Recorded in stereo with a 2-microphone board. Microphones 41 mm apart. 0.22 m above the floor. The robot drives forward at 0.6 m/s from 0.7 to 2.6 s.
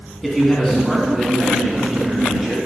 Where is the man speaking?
Centre (ahead or behind), 1.6 m.